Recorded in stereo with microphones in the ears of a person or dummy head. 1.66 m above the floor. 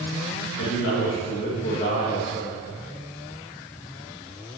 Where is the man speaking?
75° left (ahead or behind), 2 m; by 2.6 s 30° left (ahead or behind), 2 m.